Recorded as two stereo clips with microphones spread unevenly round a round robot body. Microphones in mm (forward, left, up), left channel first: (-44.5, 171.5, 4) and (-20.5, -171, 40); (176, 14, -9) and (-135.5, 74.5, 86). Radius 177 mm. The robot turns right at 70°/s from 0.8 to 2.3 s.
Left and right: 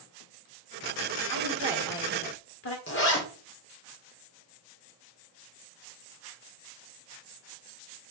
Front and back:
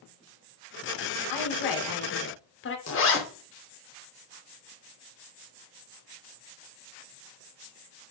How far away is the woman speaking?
About 2 m.